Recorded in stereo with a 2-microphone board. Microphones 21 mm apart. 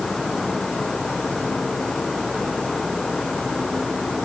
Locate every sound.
Only background noise.